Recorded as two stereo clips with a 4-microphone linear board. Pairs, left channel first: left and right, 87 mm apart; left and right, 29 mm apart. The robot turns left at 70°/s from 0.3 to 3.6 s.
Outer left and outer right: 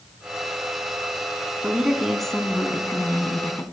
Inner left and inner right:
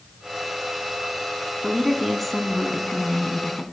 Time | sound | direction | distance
1.6 | a woman speaking | 15° right (ahead or behind) | 1.2 m